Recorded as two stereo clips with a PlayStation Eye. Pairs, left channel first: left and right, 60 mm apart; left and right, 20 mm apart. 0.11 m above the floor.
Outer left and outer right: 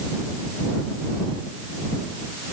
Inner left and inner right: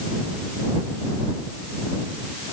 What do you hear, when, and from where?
Only background noise.